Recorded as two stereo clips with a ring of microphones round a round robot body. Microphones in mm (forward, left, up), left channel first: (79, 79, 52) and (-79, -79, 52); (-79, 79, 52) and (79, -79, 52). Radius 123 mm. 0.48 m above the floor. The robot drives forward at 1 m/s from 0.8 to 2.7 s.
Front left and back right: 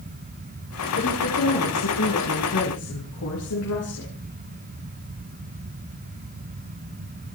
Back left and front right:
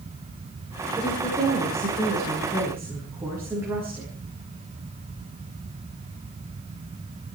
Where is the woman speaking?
30° left, 9 m; by 4.1 s 35° left, 7.5 m.